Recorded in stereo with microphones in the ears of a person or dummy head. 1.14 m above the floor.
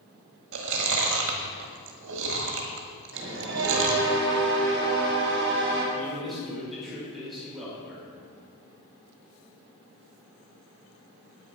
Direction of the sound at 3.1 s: 65° right (ahead or behind).